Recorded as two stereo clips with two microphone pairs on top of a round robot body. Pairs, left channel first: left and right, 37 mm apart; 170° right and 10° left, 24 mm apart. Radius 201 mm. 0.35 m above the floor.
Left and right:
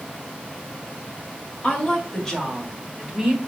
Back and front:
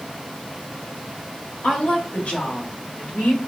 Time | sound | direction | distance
1.6 | a woman speaking | 150° left | 2 m